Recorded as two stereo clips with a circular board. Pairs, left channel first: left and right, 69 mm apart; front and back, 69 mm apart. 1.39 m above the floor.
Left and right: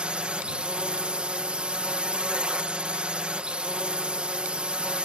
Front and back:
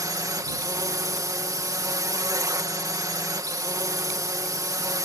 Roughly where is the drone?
Behind.